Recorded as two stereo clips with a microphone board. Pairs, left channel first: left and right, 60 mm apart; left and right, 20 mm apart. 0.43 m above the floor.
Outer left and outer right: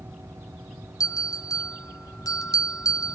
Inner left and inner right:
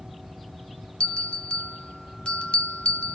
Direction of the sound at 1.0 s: 70° left (ahead or behind).